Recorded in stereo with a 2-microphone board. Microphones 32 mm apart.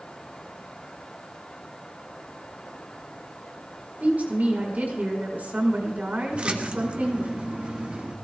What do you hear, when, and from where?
4.0 s a woman speaking: 55° right (ahead or behind), 5 m
6.3 s a splash: 35° right (ahead or behind), 1.5 m